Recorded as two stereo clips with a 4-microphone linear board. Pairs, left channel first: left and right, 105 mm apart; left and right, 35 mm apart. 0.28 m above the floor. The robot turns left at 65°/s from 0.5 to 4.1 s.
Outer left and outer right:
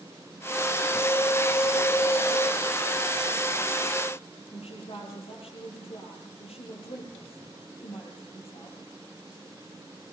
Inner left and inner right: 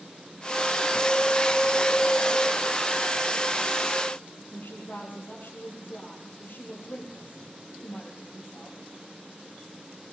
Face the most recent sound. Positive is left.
turn(degrees=65)  # may be behind; listen again after turning